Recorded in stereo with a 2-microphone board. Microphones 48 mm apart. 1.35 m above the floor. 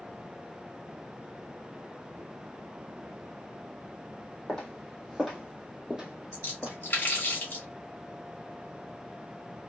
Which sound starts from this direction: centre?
Footsteps, at 4.5 s.